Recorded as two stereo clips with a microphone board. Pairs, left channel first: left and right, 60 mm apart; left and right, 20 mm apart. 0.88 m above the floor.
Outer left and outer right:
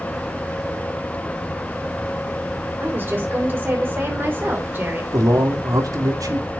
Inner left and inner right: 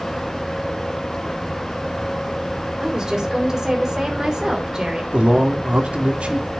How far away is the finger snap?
I don't hear a finger snap.